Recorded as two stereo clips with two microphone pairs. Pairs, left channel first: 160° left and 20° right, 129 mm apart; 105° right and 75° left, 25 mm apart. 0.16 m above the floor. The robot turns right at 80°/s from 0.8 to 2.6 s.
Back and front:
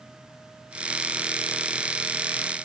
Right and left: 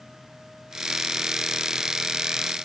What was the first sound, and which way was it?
Only background noise.